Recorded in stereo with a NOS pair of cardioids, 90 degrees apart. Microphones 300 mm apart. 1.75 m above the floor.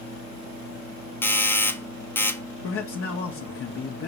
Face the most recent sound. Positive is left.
turn(degrees=50)